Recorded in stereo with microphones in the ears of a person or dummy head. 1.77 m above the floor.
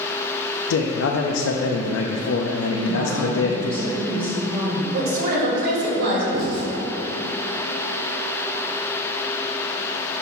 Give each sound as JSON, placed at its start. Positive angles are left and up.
{"t": 0.7, "sound": "a man speaking", "side_deg": 85, "distance_m": 0.5}
{"t": 2.7, "sound": "a woman speaking", "side_deg": -20, "distance_m": 1.6}
{"t": 4.9, "sound": "a woman speaking", "side_deg": -55, "distance_m": 2.0}
{"t": 6.3, "sound": "writing", "side_deg": -50, "distance_m": 1.5}